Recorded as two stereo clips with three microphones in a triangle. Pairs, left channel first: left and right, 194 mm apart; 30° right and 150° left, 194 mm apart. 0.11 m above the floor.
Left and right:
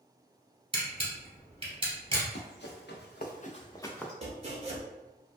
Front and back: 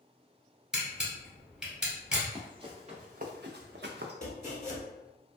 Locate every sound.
0.7 s a camera shutter: 125° right, 1.2 m
2.2 s running footsteps: 85° left, 1.0 m; by 4.1 s 175° left, 0.6 m
4.2 s chopping: 50° right, 0.7 m